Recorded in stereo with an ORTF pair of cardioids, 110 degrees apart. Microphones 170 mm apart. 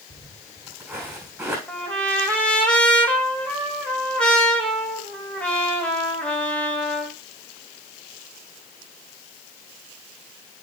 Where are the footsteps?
5° right, 5 m.